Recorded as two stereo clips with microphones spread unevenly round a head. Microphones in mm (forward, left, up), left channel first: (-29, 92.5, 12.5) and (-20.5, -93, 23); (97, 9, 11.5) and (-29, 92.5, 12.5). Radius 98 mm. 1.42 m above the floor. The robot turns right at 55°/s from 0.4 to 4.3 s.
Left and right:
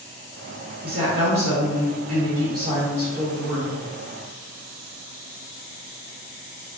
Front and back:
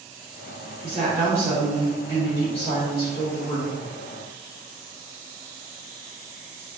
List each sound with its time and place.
0.8 s a woman speaking: 155° right, 1.2 m; by 3.8 s 10° left, 1.2 m